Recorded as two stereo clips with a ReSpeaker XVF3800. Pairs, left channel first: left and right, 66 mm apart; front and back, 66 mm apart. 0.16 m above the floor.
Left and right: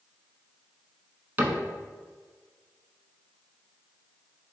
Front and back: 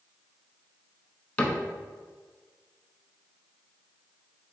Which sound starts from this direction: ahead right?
A cupboard door, at 1.4 s.